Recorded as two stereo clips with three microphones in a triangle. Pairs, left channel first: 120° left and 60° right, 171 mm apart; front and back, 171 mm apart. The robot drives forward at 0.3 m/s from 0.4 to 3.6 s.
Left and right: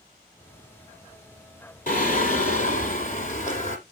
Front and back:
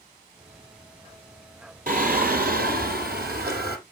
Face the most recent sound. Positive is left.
turn(degrees=160)